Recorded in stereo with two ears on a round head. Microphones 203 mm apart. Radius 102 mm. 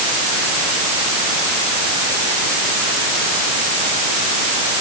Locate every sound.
Only background noise.